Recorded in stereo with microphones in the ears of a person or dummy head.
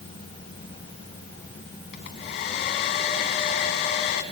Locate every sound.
1.9 s a hair dryer: 50° left (ahead or behind), 2.5 m